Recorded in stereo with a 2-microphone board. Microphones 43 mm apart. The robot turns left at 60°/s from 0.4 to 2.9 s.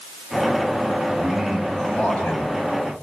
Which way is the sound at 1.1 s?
160° right.